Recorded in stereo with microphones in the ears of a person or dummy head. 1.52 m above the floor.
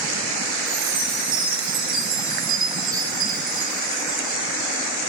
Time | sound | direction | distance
0.7 | a chime | 40° right (ahead or behind) | 7.5 m